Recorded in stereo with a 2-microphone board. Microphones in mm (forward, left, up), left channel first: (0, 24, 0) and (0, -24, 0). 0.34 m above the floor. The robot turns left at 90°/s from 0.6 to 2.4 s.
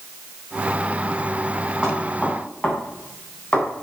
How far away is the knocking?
About 3 m.